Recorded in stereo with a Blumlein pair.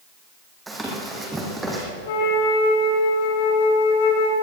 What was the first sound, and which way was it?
Running footsteps, 10° right.